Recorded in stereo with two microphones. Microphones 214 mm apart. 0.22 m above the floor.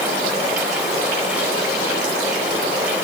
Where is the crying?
No crying in this recording.